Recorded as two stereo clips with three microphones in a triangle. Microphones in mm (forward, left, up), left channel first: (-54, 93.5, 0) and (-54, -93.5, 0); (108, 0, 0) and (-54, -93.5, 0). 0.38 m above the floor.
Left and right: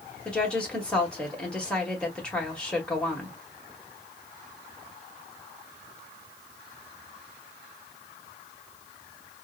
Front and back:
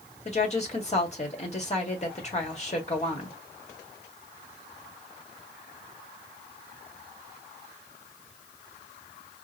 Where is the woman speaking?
10° left, 1.4 m.